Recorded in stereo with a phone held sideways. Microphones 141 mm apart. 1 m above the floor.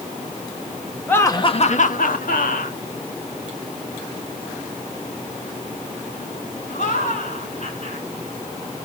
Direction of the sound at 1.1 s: 10° left (ahead or behind).